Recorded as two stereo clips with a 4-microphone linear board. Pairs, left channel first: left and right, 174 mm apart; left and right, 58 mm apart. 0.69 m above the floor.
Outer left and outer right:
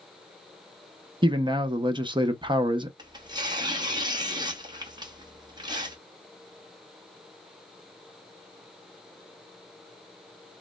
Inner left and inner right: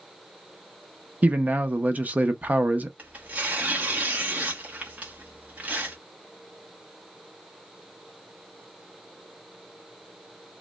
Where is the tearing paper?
25° right (ahead or behind), 0.8 m.